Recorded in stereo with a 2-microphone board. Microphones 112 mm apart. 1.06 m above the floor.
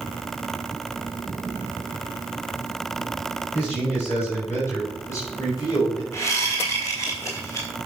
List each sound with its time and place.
3.5 s a man speaking: 15° left (ahead or behind), 6.5 m; by 6.0 s 35° left (ahead or behind), 5 m
6.1 s a whoosh: 30° left (ahead or behind), 4 m